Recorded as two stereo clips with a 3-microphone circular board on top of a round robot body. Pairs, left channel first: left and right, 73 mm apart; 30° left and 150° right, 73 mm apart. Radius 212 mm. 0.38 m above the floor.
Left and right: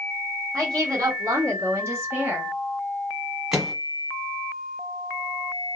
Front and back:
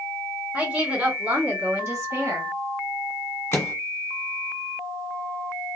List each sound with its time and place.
0.5 s a woman speaking: 90° right, 1.8 m; by 2.5 s 145° right, 1.5 m
3.5 s a microwave: 10° right, 1.1 m